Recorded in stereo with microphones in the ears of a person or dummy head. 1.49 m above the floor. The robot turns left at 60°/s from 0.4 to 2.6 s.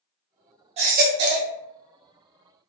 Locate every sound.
0.8 s a baby crying: 40° right, 0.8 m; by 1.5 s 90° right, 0.8 m